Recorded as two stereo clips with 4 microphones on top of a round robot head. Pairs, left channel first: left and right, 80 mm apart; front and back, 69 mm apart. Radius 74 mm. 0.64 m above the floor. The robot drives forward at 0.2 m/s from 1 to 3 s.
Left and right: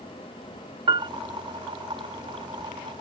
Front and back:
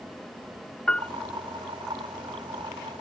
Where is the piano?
75° right.